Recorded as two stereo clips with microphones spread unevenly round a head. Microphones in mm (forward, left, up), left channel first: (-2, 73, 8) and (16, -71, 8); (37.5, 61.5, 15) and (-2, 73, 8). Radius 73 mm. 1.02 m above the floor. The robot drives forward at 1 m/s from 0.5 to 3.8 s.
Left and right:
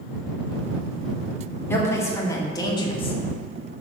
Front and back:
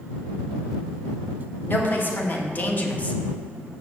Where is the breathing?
No breathing in this recording.